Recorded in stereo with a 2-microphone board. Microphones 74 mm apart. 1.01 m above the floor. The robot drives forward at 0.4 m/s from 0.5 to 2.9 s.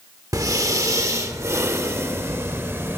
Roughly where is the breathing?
Right.